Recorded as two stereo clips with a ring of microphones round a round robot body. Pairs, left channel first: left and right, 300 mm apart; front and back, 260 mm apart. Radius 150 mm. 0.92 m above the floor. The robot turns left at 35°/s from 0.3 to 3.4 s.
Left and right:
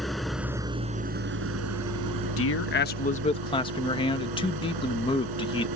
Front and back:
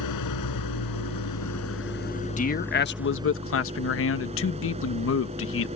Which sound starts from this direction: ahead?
An engine running, at 0.0 s.